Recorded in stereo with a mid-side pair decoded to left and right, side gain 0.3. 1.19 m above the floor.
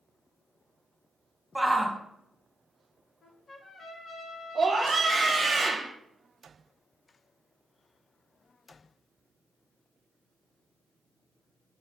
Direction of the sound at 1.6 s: 5° right.